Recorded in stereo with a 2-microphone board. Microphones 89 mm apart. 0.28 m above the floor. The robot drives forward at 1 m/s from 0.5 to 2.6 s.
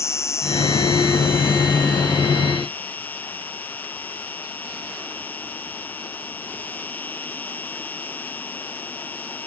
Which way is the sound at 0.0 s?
30° left (ahead or behind).